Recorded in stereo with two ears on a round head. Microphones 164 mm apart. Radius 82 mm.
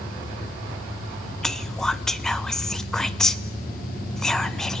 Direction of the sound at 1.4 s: 5° left (ahead or behind).